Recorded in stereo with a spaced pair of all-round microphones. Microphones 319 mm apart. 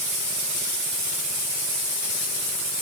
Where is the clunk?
No clunk in this recording.